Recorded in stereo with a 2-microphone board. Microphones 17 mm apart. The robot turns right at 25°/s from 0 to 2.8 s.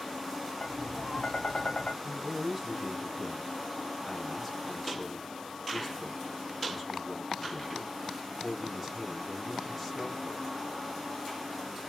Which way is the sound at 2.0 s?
30° right (ahead or behind).